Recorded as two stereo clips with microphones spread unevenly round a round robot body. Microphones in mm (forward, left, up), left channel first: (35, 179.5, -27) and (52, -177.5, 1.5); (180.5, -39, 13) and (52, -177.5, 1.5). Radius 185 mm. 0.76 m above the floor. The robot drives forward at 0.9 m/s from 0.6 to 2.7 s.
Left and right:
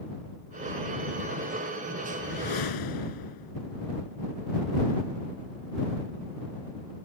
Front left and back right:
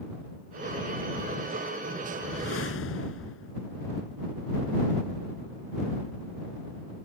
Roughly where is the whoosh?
Ahead left.